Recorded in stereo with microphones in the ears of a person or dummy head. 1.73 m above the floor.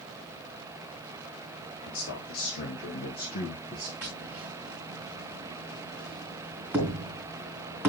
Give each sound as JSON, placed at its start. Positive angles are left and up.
{"t": 1.8, "sound": "a man speaking", "side_deg": 75, "distance_m": 2.0}
{"t": 4.0, "sound": "tapping", "side_deg": -10, "distance_m": 2.5}